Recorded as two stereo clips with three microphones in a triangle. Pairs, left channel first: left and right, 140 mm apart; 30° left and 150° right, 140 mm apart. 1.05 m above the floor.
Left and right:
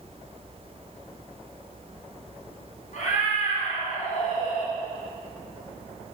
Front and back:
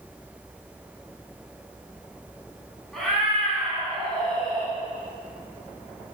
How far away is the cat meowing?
About 3.5 m.